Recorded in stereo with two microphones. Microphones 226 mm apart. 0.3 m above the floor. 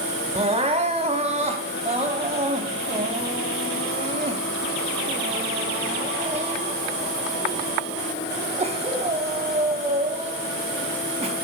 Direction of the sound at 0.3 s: 30° right (ahead or behind).